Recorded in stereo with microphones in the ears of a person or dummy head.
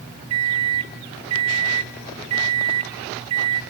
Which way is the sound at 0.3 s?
30° right (ahead or behind).